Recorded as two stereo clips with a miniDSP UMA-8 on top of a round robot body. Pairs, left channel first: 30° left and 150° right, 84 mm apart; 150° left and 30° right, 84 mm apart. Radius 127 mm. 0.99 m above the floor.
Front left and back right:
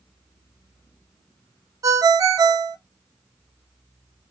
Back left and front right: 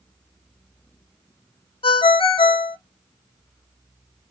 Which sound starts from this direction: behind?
A ringtone, at 1.8 s.